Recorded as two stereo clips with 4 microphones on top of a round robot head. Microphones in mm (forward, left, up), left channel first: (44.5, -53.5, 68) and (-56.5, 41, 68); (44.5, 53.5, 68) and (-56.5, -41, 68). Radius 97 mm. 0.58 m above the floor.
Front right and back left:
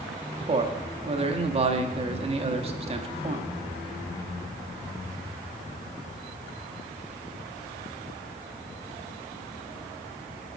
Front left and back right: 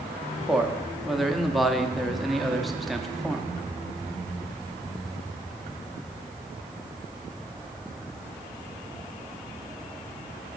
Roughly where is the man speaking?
Behind left.